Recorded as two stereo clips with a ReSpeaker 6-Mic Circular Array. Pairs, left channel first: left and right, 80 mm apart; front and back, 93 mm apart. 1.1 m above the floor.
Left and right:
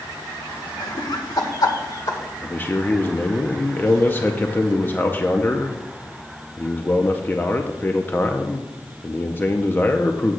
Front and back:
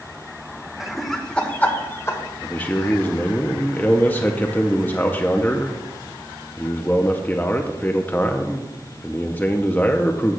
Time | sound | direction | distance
0.8 | laughter | 95° left | 1.2 m
2.4 | a man speaking | 50° left | 0.5 m